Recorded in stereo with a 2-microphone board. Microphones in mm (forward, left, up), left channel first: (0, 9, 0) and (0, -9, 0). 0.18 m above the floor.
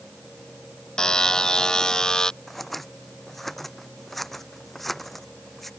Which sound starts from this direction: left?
A buzzer, at 1.0 s.